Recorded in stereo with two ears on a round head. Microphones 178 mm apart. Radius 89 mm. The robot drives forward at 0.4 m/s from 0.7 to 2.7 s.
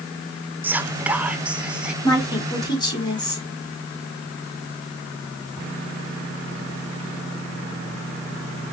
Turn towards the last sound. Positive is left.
turn(degrees=20)  # may be behind; listen again after turning